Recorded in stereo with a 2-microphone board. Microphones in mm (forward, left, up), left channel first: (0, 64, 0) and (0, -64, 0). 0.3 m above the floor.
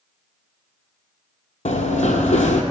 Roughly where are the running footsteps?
Left.